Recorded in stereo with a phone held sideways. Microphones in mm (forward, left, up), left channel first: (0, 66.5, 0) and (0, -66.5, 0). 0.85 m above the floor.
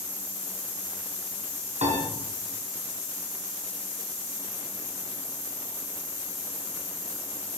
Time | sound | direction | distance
1.8 | a piano | 55° right (ahead or behind) | 5.5 m